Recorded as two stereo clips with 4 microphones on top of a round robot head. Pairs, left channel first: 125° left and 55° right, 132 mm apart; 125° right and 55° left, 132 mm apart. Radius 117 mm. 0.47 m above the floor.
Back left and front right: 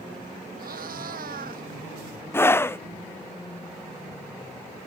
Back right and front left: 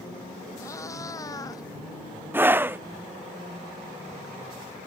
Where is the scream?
95° left.